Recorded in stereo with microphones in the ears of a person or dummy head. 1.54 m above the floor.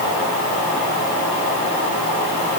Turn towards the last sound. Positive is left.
No sound to turn to.